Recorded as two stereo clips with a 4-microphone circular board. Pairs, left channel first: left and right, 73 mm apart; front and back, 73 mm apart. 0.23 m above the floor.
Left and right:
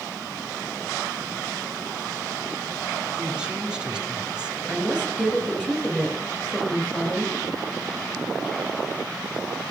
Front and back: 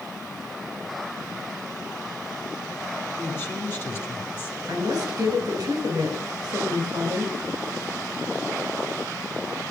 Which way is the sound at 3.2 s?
25° right.